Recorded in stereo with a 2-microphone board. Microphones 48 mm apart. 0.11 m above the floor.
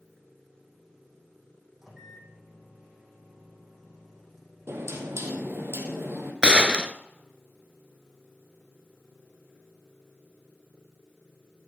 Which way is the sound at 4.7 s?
70° right (ahead or behind).